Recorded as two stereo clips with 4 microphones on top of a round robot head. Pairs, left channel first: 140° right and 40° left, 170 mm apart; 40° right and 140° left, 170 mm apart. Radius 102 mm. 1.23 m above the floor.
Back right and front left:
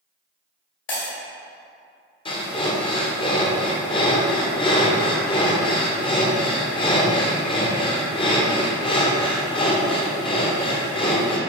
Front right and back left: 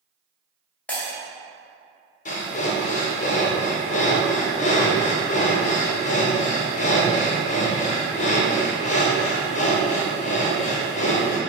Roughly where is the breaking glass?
Behind right.